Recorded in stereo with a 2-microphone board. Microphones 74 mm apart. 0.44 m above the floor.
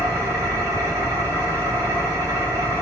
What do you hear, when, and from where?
0.0 s an engine running: 45° right (ahead or behind), 1.8 m